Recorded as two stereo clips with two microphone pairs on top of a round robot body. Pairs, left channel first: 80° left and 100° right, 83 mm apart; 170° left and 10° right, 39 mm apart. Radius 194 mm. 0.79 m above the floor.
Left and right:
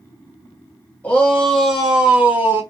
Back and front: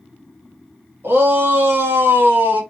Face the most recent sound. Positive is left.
turn(degrees=-40)